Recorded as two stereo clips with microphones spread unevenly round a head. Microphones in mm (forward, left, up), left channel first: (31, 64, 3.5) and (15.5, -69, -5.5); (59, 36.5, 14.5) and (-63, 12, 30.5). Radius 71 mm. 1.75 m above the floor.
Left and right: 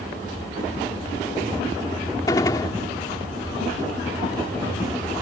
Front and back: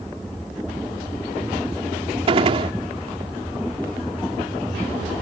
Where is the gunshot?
150° left.